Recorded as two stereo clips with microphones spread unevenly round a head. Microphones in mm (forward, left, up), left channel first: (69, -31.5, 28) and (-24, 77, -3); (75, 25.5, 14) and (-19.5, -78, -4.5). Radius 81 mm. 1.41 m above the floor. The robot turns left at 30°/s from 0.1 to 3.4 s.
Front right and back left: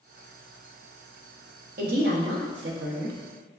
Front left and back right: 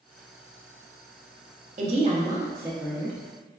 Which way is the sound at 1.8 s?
175° left.